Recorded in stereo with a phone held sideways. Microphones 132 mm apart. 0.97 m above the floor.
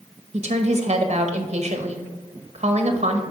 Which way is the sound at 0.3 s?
55° right (ahead or behind).